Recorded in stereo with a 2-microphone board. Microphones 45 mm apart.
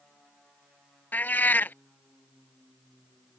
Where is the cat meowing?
45° left (ahead or behind).